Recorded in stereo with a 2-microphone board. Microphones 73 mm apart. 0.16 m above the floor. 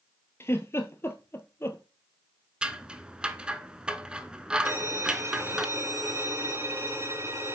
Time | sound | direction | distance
0.4 | a giggle | 35° left (ahead or behind) | 1.0 m
2.6 | scissors | 10° right (ahead or behind) | 0.6 m
4.7 | a violin | 40° right (ahead or behind) | 1.5 m